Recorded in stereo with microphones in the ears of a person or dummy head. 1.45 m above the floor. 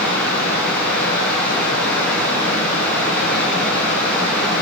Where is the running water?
10° left (ahead or behind), 9 m.